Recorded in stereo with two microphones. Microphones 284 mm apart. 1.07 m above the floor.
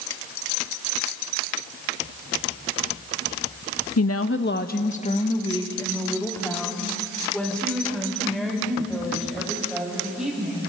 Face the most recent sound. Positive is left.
turn(degrees=-5)  # may be behind; listen again after turning